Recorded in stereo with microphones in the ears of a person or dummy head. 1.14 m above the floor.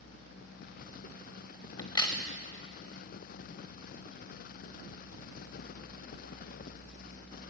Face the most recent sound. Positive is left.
turn(degrees=25)  # may be behind; listen again after turning